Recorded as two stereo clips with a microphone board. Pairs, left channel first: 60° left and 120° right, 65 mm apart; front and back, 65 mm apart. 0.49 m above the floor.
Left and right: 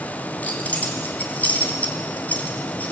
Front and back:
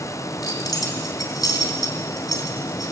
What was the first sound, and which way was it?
Keys jangling, 5° right.